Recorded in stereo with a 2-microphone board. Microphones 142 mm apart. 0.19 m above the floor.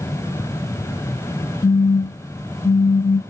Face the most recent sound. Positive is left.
turn(degrees=40)  # may be behind; listen again after turning